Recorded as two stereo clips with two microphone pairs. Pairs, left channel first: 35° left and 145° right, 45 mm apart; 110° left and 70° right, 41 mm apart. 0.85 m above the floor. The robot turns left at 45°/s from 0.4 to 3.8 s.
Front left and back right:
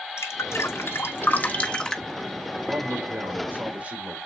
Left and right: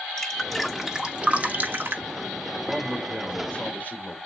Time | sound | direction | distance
0.2 | dripping | 30° left | 1.3 m
2.7 | a man speaking | 155° right | 2.5 m